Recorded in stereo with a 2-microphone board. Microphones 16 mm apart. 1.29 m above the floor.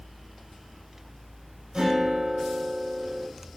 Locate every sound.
1.7 s a guitar: 70° right (ahead or behind), 4 m